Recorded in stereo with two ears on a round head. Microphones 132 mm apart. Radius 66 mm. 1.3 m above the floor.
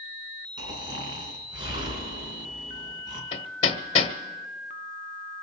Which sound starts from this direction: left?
Hammering, at 3.3 s.